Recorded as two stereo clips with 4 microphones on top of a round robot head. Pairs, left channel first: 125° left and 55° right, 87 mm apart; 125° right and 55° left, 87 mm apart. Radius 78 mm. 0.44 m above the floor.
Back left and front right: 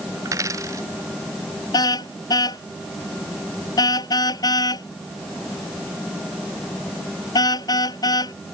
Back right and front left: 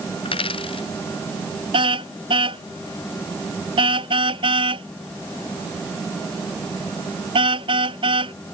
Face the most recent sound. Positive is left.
turn(degrees=80)